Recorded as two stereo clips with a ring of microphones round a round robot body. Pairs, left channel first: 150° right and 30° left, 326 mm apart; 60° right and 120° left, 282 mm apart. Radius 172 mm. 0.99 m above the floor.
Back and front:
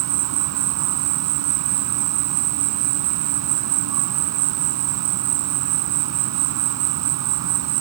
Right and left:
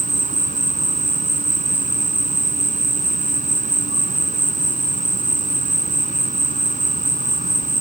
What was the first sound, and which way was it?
An insect, 60° left.